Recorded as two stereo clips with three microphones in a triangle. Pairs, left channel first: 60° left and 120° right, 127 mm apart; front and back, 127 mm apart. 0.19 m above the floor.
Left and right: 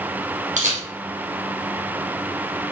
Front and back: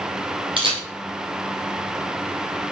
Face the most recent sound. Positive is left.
turn(degrees=-135)